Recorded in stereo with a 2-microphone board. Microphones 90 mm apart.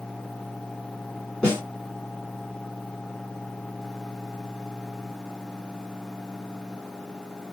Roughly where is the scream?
No scream in this recording.